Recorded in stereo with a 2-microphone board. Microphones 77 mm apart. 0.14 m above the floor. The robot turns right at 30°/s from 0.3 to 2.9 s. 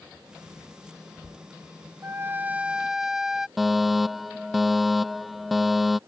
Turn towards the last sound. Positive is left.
turn(degrees=0)  # may be behind; listen again after turning